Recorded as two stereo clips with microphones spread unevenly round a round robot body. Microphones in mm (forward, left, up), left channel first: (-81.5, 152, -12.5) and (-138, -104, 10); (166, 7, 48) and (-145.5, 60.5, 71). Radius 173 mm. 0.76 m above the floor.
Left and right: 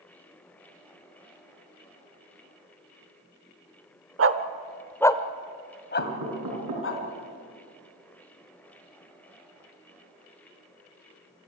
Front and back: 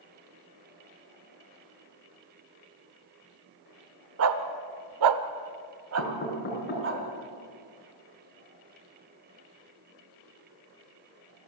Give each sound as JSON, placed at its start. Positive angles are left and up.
{"t": 4.2, "sound": "a dog barking", "azimuth_deg": -140, "distance_m": 1.2}
{"t": 6.0, "sound": "knocking", "azimuth_deg": -70, "distance_m": 5.0}